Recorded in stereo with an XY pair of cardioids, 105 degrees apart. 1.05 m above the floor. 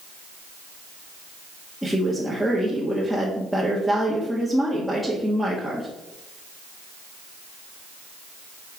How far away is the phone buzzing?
I don't hear a phone buzzing.